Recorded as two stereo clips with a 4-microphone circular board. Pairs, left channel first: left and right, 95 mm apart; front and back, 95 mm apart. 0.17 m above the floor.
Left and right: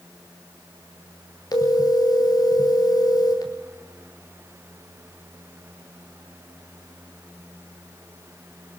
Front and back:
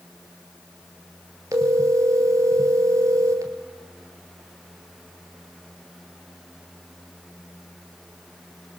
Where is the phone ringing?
130° left, 2.5 m.